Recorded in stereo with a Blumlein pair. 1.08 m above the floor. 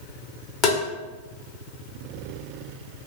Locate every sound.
0.6 s tapping: 30° left, 1.2 m